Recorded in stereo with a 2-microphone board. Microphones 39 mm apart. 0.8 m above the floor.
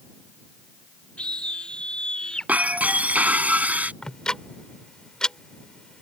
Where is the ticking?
25° left (ahead or behind).